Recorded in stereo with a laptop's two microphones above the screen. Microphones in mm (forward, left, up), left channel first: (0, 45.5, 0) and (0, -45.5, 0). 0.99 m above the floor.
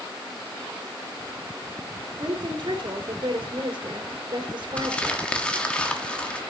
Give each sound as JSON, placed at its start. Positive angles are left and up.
{"t": 2.2, "sound": "a woman speaking", "side_deg": -65, "distance_m": 2.5}
{"t": 4.8, "sound": "crumpling", "side_deg": 10, "distance_m": 1.1}